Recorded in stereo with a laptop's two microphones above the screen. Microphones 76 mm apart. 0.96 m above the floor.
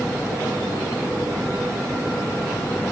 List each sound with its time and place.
Only background noise.